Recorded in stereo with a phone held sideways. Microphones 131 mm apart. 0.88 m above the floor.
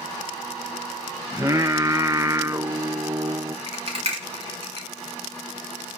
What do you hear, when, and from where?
1.3 s singing: 25° right (ahead or behind), 0.8 m
3.7 s a rattle: 50° right (ahead or behind), 5.5 m